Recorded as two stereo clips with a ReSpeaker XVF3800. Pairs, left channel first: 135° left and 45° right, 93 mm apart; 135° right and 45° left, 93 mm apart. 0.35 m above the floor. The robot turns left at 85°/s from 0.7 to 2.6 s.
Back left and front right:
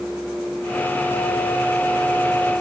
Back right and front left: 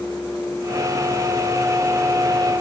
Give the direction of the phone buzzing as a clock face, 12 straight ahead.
No phone buzzing in this recording.